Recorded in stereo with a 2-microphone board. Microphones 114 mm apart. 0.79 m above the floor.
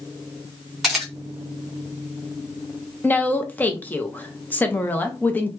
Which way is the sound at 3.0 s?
15° left (ahead or behind).